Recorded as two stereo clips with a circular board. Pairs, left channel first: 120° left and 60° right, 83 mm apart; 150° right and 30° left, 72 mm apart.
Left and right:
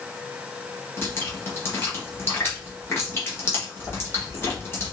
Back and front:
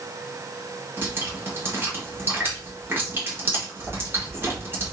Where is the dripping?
75° left, 1.4 m.